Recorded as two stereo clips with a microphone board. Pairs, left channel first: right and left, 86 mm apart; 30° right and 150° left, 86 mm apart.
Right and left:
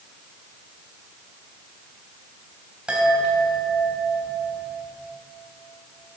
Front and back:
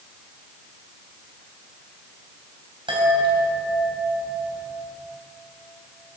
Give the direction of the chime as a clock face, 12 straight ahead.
6 o'clock.